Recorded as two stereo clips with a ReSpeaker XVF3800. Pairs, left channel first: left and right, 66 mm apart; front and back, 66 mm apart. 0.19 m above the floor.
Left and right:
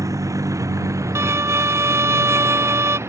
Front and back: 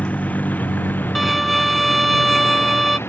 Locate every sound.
0.0 s a vehicle: 65° right; by 3.1 s 50° right
1.1 s a violin: 90° right